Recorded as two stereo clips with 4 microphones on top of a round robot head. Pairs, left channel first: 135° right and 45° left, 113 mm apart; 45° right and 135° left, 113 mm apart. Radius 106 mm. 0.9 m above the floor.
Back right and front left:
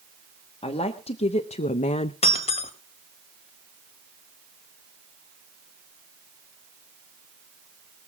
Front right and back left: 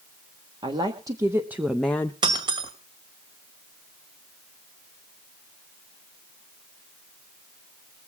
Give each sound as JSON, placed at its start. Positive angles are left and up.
{"t": 0.6, "sound": "a woman speaking", "azimuth_deg": -175, "distance_m": 1.5}
{"t": 2.2, "sound": "breaking glass", "azimuth_deg": -170, "distance_m": 1.9}